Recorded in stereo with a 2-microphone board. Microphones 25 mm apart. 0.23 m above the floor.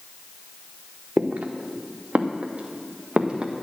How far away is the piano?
No piano in this recording.